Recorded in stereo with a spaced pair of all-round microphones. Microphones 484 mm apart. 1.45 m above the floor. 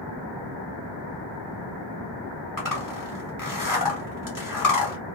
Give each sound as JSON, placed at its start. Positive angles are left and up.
{"t": 2.6, "sound": "a zipper", "side_deg": 40, "distance_m": 1.0}